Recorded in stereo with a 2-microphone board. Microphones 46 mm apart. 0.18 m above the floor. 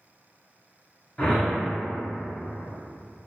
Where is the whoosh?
15° left (ahead or behind), 1.1 m.